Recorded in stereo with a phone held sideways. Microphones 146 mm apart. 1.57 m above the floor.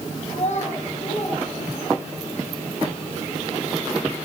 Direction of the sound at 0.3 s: 60° left (ahead or behind).